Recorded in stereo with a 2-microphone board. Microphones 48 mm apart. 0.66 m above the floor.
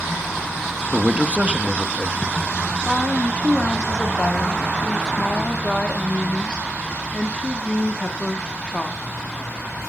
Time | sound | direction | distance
0.9 | a man speaking | 25° right (ahead or behind) | 0.5 m
2.9 | a woman speaking | 20° left (ahead or behind) | 0.9 m